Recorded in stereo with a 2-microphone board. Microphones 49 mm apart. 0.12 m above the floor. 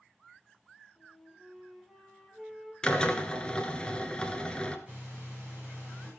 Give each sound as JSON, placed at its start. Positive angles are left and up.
{"t": 1.0, "sound": "a flute", "side_deg": -10, "distance_m": 3.5}
{"t": 2.8, "sound": "a drill", "side_deg": 20, "distance_m": 1.2}
{"t": 4.9, "sound": "breathing", "side_deg": -20, "distance_m": 9.0}